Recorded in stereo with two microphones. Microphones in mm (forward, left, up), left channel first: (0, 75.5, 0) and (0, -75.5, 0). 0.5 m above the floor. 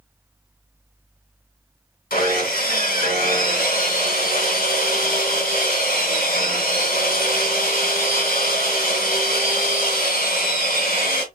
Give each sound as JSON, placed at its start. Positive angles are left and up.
{"t": 2.1, "sound": "sawing", "side_deg": 70, "distance_m": 3.0}